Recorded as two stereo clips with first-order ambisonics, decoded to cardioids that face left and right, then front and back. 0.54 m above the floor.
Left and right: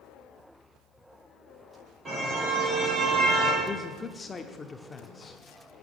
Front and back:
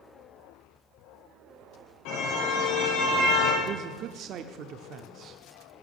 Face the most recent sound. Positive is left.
turn(degrees=155)